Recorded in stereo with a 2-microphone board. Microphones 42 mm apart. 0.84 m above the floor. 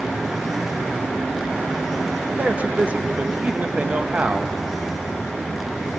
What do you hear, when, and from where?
2.4 s a man speaking: 35° right (ahead or behind), 0.7 m